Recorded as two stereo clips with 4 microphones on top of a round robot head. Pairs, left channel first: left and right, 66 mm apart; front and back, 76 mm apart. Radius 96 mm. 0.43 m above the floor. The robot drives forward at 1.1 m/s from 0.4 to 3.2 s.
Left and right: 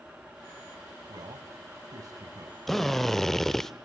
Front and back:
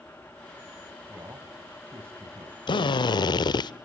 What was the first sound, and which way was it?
A man speaking, 105° right.